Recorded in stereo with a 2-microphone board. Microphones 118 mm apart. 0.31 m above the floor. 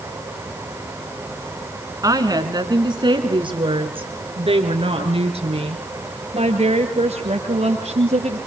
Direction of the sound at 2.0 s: 30° right (ahead or behind).